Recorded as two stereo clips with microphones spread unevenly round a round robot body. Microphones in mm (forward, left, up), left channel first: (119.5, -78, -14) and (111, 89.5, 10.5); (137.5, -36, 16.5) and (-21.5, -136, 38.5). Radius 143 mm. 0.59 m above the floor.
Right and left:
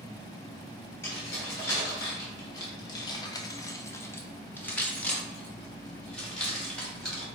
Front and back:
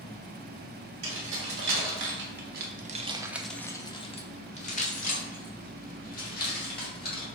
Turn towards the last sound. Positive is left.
turn(degrees=0)